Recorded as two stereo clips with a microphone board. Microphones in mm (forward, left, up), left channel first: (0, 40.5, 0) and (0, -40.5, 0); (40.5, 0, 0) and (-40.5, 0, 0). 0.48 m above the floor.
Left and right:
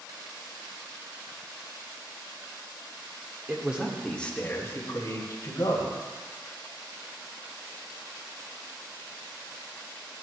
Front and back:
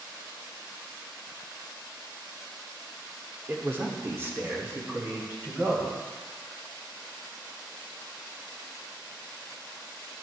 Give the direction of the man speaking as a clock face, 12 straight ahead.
4 o'clock.